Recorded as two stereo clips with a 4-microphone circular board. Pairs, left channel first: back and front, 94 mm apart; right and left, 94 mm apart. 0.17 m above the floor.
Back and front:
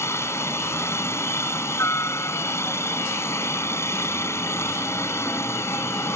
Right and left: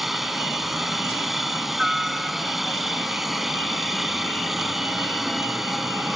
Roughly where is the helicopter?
Behind.